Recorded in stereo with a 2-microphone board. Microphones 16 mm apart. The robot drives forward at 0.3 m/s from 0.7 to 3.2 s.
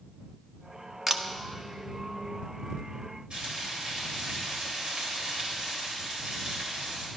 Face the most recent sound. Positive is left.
turn(degrees=-75)  # may be behind; listen again after turning